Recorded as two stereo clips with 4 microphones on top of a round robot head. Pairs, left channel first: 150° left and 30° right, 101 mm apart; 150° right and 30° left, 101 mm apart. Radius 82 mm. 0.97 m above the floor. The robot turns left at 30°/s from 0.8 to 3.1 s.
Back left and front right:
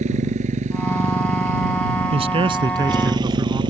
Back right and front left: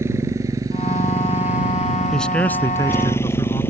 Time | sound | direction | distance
0.0 | a motorcycle | 35° right | ?
2.1 | a man speaking | 65° right | ?